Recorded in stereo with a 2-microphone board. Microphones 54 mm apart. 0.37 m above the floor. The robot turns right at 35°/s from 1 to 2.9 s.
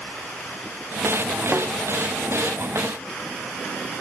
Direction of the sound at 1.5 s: 35° right (ahead or behind).